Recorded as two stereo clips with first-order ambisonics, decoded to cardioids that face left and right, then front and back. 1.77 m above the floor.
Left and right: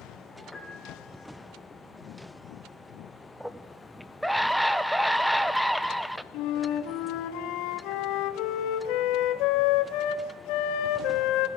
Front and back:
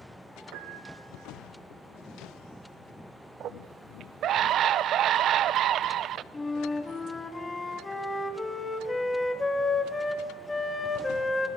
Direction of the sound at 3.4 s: 175° right.